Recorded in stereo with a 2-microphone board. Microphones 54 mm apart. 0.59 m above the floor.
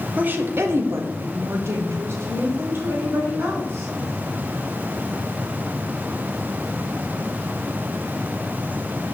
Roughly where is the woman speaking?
Right.